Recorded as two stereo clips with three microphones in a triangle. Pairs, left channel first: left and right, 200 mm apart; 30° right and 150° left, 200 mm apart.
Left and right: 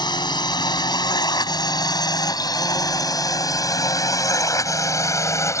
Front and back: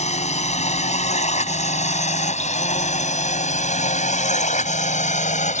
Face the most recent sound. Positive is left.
turn(degrees=15)